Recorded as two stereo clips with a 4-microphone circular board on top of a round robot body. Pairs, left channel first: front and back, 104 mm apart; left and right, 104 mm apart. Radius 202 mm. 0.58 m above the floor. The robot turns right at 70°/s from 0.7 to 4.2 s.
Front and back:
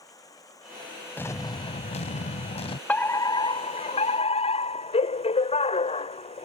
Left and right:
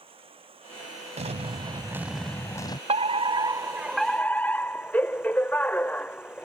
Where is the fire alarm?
75° right; by 6.5 s 15° left.